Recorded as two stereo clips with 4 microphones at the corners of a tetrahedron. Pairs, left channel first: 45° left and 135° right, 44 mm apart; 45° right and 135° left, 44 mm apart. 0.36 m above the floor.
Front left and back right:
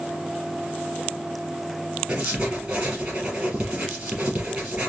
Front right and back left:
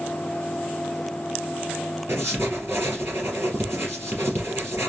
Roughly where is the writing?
Behind.